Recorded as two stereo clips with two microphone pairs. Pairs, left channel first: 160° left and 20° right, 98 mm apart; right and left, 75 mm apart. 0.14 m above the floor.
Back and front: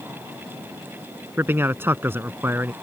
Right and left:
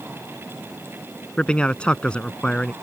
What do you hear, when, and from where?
1.4 s a man speaking: 40° right